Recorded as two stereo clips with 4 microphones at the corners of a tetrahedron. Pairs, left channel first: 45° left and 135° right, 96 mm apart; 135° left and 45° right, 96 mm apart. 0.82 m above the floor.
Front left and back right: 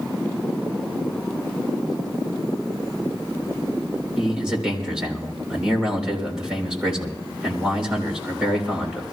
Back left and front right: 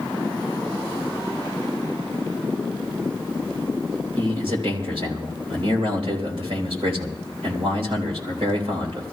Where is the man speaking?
55° right, 3.5 m.